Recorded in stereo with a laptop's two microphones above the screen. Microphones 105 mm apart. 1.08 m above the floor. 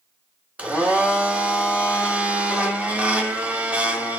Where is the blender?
15° right (ahead or behind), 1.6 m.